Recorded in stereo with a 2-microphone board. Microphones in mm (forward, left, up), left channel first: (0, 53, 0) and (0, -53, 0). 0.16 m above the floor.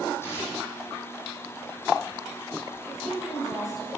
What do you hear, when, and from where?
0.2 s tearing paper: 25° left (ahead or behind), 3.5 m
2.9 s a woman speaking: 5° right (ahead or behind), 3 m